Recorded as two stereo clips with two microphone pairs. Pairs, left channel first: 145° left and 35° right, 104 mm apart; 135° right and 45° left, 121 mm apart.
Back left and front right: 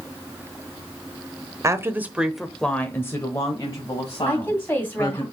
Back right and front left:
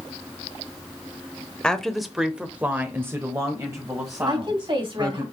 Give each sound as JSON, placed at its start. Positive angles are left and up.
{"t": 1.6, "sound": "a woman speaking", "azimuth_deg": -55, "distance_m": 0.9}
{"t": 4.3, "sound": "a woman speaking", "azimuth_deg": 80, "distance_m": 2.5}